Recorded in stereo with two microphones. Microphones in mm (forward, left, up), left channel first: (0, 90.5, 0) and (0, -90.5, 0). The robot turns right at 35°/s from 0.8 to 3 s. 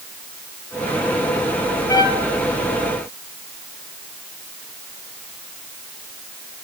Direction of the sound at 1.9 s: 20° left (ahead or behind).